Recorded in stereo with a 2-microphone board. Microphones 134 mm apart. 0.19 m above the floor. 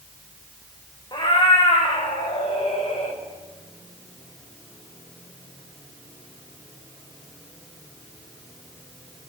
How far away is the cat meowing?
About 4 m.